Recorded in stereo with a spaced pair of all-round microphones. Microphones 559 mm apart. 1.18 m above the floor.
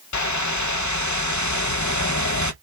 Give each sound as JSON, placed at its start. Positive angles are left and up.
{"t": 0.1, "sound": "a whoosh", "side_deg": 35, "distance_m": 0.5}